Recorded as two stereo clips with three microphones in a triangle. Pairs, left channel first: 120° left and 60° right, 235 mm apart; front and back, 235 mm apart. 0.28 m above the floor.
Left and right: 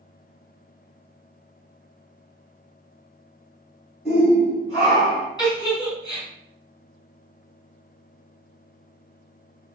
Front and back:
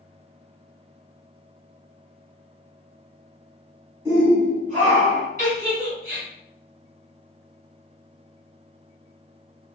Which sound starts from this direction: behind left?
A shout, at 4.0 s.